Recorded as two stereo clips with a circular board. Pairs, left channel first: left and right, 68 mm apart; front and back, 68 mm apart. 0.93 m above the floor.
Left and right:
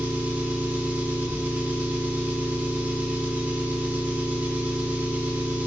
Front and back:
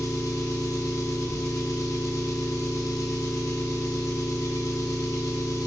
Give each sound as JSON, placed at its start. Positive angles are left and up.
{"t": 0.0, "sound": "an engine running", "azimuth_deg": -25, "distance_m": 0.9}